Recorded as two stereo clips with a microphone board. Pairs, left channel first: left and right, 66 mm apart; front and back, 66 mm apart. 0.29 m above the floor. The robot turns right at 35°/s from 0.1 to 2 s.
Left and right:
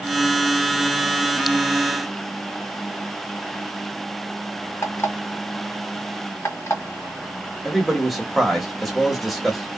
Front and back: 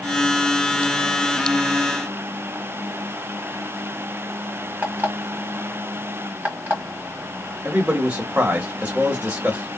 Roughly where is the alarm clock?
Behind left.